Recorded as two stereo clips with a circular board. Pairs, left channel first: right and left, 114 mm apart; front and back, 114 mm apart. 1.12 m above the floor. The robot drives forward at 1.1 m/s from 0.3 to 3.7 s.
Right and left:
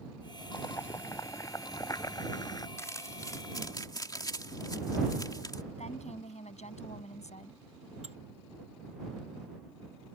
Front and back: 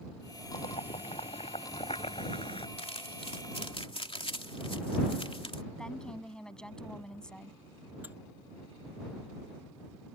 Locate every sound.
0.5 s boiling: 25° right; by 2.7 s 35° right
2.8 s crumpling: 25° right; by 5.6 s 35° right
5.8 s a woman speaking: 85° right
8.0 s dishes clattering: 105° left